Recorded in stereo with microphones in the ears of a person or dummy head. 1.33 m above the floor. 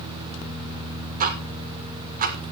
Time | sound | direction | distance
1.2 | ticking | 45° right (ahead or behind) | 1.0 m